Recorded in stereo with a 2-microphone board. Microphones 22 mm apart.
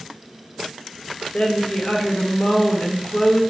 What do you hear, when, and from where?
1.3 s a woman speaking: 70° left (ahead or behind), 1.0 m